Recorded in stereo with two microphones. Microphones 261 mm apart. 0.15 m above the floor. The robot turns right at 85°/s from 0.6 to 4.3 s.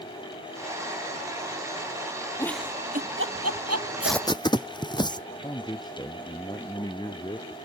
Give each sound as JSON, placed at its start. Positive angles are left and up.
{"t": 2.4, "sound": "a giggle", "side_deg": 15}
{"t": 4.0, "sound": "tape being pulled", "side_deg": -5}
{"t": 5.4, "sound": "a man speaking", "side_deg": 15}